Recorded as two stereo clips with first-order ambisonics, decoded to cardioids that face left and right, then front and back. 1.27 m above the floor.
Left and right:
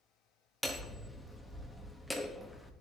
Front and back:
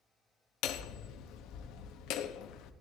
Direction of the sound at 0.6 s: Straight ahead.